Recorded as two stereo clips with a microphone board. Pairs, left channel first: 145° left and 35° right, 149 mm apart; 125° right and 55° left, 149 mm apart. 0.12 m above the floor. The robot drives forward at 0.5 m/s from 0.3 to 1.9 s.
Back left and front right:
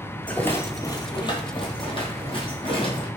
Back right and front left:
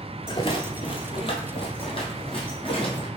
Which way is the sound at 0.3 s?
140° right.